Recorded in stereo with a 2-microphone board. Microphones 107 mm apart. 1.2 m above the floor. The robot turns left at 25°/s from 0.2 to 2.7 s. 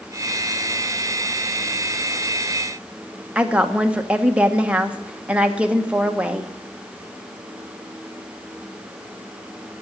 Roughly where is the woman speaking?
Centre.